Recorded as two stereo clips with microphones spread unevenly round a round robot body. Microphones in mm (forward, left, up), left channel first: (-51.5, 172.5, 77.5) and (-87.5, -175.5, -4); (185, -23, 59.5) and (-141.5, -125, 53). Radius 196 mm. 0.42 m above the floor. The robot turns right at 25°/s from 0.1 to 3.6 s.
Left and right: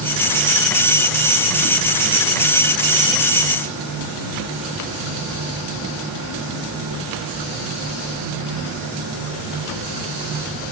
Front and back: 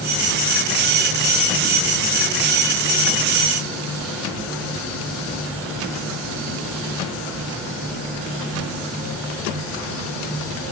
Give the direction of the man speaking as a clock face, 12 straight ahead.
I don't hear a man speaking.